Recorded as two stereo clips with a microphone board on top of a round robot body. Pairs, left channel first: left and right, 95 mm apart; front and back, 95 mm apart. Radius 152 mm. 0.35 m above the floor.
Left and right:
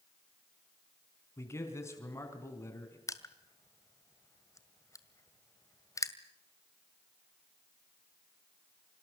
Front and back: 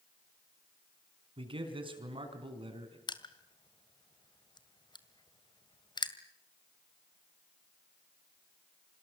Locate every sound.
1.4 s a man speaking: 150° left, 4.5 m
3.1 s crushing: 35° left, 2 m